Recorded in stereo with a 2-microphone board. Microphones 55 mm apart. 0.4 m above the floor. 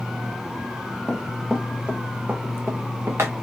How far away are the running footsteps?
About 1.3 m.